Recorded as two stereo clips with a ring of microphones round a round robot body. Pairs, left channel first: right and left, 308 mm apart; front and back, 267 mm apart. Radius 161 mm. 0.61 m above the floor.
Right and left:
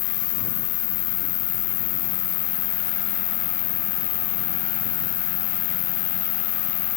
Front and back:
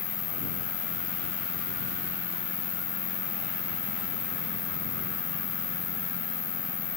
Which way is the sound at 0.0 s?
75° right.